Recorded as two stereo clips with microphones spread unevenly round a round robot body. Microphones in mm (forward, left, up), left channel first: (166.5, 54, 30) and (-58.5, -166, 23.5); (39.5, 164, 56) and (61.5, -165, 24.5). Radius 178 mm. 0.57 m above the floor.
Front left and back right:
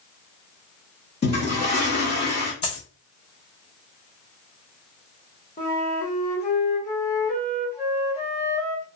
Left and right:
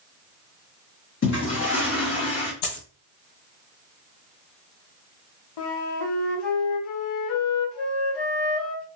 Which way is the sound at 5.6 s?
110° left.